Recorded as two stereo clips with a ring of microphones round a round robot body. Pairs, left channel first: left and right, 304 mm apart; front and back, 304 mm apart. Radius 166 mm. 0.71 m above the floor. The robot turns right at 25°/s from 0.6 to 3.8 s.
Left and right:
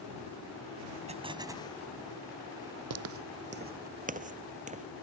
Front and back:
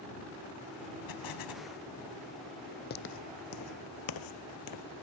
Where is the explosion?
20° right; by 1.7 s 5° right.